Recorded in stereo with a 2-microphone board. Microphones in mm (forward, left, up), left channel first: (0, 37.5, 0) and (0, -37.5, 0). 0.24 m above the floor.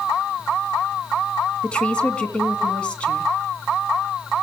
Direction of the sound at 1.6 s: 15° left (ahead or behind).